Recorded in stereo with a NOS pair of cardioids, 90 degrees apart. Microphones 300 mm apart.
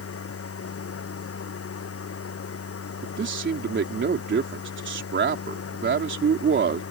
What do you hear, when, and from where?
0.0 s a machine running: 50° left
3.0 s a man speaking: 40° right